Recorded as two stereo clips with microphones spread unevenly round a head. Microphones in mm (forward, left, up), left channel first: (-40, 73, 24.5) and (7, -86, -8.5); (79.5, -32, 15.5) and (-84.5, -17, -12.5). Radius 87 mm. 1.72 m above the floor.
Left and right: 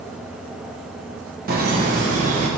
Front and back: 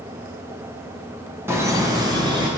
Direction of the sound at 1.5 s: 110° right.